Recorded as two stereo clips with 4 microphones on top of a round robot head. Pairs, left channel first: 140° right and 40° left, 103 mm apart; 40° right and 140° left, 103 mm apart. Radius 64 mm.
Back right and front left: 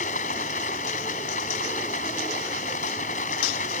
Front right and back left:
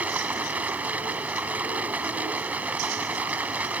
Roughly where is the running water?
Behind right.